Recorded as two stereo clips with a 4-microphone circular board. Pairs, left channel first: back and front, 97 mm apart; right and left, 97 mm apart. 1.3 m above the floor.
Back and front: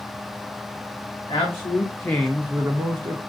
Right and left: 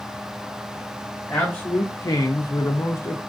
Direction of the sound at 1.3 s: 160° right.